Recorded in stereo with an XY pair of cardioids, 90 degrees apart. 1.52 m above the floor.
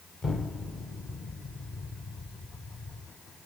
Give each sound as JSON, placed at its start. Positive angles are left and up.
{"t": 0.2, "sound": "an explosion", "azimuth_deg": 40, "distance_m": 1.4}